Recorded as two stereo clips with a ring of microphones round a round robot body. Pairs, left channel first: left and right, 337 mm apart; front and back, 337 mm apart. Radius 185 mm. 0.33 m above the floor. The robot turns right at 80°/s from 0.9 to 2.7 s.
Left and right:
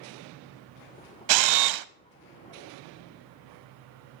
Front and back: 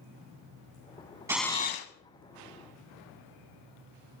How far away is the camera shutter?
About 0.5 m.